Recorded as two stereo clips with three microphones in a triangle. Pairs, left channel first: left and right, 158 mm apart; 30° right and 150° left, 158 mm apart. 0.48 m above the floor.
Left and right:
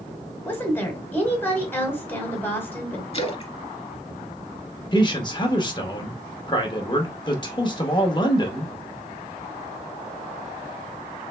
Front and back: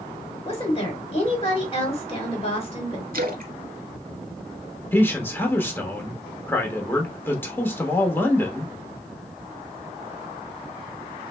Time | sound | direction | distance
0.5 | a woman speaking | 15° left | 1.4 m
3.1 | a splash | 135° left | 0.7 m
4.9 | a man speaking | 40° left | 0.9 m